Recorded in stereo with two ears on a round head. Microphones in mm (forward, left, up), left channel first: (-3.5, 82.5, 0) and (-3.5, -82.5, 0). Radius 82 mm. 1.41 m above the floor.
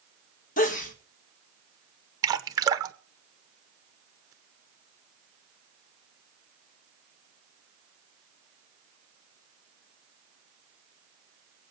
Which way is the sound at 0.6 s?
45° left (ahead or behind).